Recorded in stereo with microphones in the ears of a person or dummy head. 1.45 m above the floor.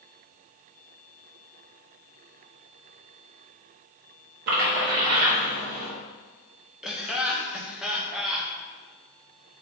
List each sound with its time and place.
4.5 s a splash: 50° right (ahead or behind), 1.5 m
6.8 s laughter: 10° right (ahead or behind), 1.0 m